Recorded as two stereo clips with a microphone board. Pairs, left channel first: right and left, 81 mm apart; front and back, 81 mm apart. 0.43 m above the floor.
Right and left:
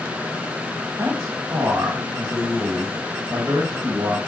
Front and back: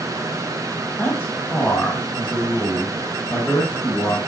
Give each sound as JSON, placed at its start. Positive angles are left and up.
{"t": 1.0, "sound": "a man speaking", "azimuth_deg": 55, "distance_m": 1.7}